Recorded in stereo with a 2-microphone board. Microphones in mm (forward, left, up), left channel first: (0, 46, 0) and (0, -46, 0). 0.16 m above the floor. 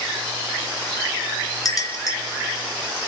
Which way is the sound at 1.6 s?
40° left (ahead or behind).